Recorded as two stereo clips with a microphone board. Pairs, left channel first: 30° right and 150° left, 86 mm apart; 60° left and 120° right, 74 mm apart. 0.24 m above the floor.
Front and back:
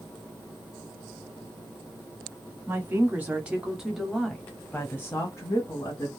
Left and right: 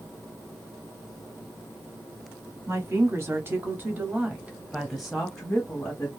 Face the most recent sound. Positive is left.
turn(degrees=-10)